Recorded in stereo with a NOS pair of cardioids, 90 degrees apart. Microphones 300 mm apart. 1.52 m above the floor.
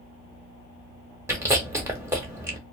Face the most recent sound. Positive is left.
turn(degrees=-10)